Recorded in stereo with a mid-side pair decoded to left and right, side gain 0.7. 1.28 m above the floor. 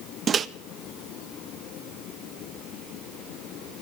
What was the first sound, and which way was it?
A microwave, 30° right.